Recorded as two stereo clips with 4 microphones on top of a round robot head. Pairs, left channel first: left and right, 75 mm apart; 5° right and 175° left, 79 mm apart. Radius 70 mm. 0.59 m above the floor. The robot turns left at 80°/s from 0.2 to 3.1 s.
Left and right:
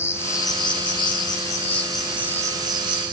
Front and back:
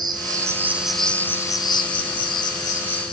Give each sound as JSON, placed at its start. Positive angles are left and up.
{"t": 0.0, "sound": "an insect", "azimuth_deg": 145, "distance_m": 5.0}